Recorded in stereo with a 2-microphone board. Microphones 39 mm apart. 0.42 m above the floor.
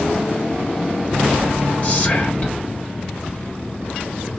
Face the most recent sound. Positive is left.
turn(degrees=35)  # may be behind; listen again after turning